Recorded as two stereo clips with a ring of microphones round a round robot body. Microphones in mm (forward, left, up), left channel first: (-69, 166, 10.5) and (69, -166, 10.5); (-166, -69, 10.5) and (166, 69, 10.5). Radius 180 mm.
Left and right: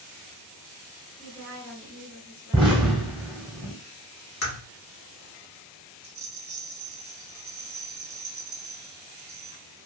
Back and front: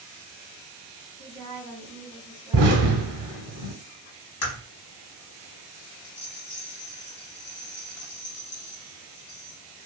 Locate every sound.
1.2 s a woman speaking: 135° left, 1.6 m
2.5 s an explosion: 5° left, 0.8 m
4.4 s a crack: 165° left, 0.9 m
6.0 s a rattle: 105° right, 0.8 m